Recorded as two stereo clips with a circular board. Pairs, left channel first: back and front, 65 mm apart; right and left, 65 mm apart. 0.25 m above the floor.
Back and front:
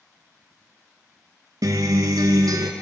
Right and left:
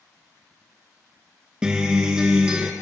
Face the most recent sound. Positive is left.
turn(degrees=15)